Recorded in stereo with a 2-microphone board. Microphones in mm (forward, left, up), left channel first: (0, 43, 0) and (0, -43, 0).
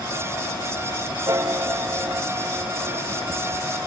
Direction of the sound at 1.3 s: 40° right (ahead or behind).